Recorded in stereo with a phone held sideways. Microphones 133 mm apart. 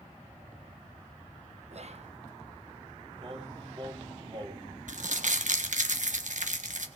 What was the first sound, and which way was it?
Whispering, 55° right (ahead or behind).